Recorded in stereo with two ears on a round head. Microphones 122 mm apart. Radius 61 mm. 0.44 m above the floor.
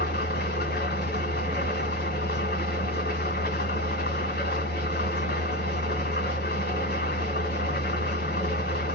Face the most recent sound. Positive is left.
turn(degrees=80)